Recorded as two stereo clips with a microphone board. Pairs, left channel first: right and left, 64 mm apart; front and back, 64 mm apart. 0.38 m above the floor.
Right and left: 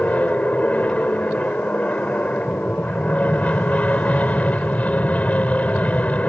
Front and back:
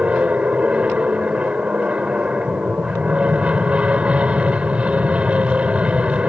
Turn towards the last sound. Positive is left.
turn(degrees=-130)